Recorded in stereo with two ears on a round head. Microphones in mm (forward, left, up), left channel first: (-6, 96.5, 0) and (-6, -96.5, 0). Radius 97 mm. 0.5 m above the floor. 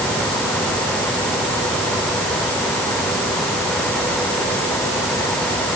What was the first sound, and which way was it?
Only background noise.